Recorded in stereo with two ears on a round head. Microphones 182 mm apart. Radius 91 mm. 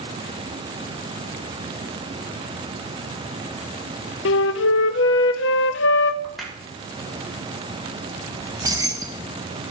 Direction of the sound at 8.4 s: 20° right (ahead or behind).